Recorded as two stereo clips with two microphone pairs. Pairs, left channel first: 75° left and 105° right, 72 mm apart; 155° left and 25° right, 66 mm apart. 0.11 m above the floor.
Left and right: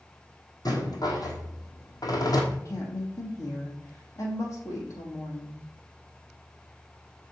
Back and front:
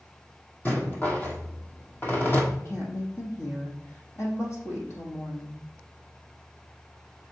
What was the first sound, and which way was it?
A rattle, 95° left.